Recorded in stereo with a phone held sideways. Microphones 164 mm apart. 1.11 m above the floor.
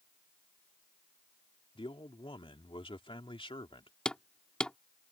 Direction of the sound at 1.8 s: 30° left (ahead or behind).